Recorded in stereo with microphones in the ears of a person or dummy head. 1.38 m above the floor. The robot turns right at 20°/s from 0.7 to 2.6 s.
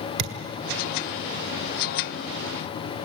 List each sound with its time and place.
0.2 s a thud: 55° right (ahead or behind), 1.8 m